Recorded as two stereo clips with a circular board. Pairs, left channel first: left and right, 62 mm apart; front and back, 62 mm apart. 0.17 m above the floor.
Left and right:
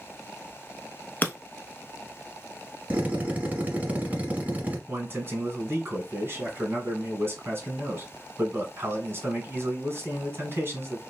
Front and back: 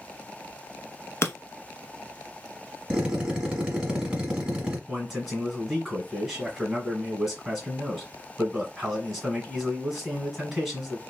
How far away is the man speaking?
About 1.3 m.